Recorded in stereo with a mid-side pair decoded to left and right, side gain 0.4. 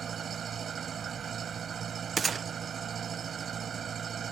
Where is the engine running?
55° right.